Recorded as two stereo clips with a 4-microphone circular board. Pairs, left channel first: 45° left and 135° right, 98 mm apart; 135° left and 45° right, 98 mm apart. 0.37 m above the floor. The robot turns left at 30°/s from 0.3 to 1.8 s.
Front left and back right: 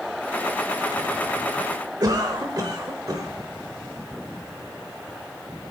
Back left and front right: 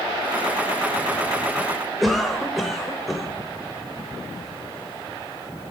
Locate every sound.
2.0 s a cough: 135° right, 1.2 m